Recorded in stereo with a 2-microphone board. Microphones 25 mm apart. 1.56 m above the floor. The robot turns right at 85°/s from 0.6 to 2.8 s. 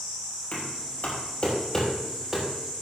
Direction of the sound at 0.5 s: 60° left (ahead or behind).